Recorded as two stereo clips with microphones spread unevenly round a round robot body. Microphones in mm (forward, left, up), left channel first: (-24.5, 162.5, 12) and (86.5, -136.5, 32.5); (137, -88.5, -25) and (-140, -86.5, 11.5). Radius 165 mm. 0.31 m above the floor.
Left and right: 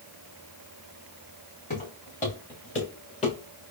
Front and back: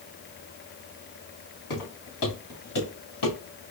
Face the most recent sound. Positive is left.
turn(degrees=40)